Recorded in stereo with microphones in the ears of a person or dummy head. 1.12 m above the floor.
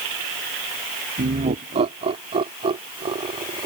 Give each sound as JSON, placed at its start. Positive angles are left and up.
{"t": 1.2, "sound": "laughter", "side_deg": -35}